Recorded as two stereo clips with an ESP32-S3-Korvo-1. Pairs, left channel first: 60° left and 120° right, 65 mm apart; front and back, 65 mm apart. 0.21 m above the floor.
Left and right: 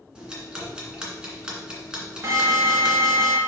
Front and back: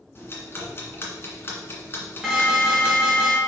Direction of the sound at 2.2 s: 90° right.